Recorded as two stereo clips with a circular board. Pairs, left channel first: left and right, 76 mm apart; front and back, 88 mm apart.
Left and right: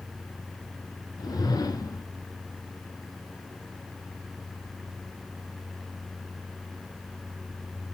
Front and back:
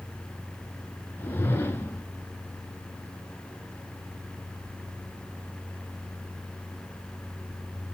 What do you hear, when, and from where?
1.2 s a whoosh: 65° left, 0.8 m